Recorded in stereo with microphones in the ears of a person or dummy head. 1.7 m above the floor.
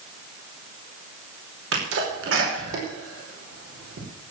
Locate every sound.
1.7 s a sneeze: 85° right, 5 m